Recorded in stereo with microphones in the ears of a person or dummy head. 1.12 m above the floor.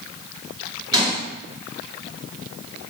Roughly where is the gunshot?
Right.